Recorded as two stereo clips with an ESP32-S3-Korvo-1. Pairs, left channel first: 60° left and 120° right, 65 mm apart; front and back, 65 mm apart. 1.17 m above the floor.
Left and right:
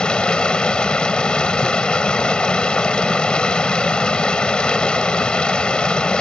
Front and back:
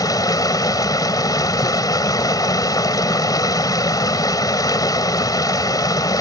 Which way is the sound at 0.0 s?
15° right.